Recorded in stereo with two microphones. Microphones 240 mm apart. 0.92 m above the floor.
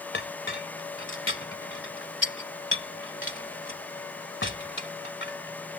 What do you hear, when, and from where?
0.1 s a clink: 50° left (ahead or behind)